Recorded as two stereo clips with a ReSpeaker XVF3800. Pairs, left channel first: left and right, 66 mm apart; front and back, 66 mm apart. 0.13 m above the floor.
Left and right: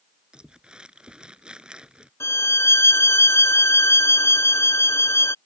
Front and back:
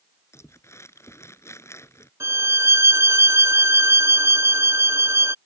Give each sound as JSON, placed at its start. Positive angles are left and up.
{"t": 0.3, "sound": "crumpling", "azimuth_deg": -20}
{"t": 2.2, "sound": "a violin", "azimuth_deg": 135}